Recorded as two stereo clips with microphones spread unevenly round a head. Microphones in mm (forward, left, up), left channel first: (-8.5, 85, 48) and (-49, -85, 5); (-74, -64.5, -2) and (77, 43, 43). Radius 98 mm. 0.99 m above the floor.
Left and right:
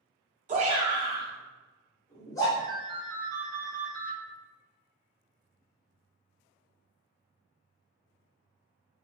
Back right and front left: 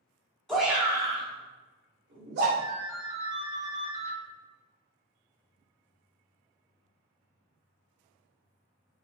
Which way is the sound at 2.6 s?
5° right.